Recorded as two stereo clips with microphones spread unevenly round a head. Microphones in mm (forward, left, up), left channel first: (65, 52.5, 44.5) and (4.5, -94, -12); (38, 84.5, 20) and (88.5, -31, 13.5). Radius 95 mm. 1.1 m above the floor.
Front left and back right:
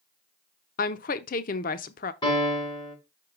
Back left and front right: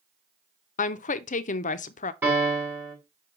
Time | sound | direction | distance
0.8 | a woman speaking | 120° left | 0.5 m
2.2 | a piano | 5° left | 5 m